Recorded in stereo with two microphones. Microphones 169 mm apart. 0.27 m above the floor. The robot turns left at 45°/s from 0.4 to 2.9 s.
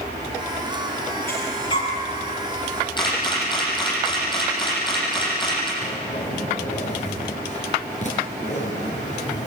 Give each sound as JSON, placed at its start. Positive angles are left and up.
{"t": 1.3, "sound": "breathing", "side_deg": 10, "distance_m": 6.5}
{"t": 3.0, "sound": "a camera shutter", "side_deg": 25, "distance_m": 8.0}
{"t": 5.8, "sound": "a zipper", "side_deg": 45, "distance_m": 5.0}